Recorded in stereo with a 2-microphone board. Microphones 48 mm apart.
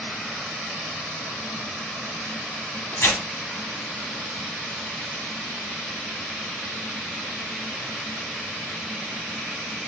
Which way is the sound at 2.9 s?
60° left (ahead or behind).